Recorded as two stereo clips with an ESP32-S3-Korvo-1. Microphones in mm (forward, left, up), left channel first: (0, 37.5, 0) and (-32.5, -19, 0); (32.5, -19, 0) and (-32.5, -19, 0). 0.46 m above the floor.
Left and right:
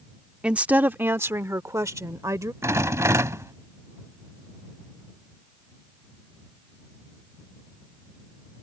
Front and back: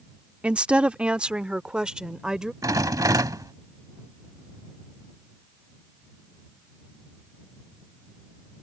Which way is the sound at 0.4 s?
155° right.